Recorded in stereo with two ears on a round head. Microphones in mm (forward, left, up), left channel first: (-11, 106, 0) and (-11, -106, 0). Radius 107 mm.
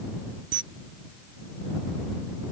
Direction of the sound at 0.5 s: 50° right (ahead or behind).